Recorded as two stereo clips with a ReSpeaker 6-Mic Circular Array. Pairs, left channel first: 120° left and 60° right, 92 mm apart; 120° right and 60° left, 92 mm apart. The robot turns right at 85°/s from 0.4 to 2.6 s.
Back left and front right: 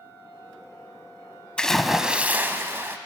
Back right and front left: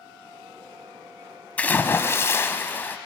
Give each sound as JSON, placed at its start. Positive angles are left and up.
{"t": 1.6, "sound": "a splash", "azimuth_deg": -175, "distance_m": 0.9}